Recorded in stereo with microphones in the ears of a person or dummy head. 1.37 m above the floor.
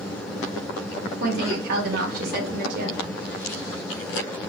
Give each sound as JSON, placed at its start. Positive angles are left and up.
{"t": 1.2, "sound": "a woman speaking", "side_deg": -60, "distance_m": 2.5}